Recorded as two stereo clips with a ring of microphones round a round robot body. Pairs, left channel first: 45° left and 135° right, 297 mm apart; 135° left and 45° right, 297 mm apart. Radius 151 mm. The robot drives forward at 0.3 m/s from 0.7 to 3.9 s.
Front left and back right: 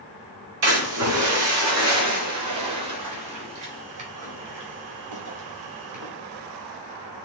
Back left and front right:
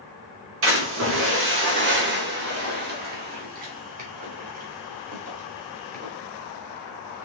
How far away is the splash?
About 3 m.